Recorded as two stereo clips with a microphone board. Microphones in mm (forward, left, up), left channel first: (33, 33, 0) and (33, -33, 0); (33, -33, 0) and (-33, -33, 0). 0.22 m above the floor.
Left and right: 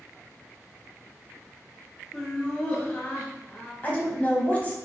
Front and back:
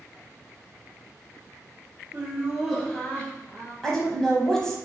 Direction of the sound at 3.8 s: 70° left.